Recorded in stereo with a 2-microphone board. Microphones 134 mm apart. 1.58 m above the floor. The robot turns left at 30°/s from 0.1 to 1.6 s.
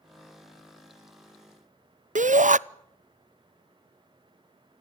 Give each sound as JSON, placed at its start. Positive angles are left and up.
{"t": 2.1, "sound": "a shout", "side_deg": -75, "distance_m": 0.7}